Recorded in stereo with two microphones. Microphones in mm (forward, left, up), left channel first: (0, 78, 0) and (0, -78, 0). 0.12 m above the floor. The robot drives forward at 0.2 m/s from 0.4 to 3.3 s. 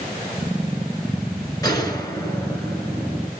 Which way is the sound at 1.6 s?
25° left (ahead or behind).